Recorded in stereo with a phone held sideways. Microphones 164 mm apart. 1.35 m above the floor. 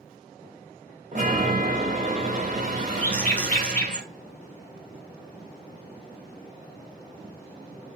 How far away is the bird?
About 0.8 m.